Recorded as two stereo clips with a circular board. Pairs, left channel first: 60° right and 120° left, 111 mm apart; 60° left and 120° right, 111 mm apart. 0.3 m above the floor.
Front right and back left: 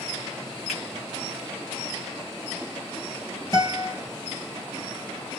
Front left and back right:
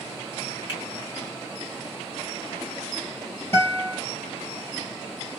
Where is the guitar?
5° right, 2.5 m.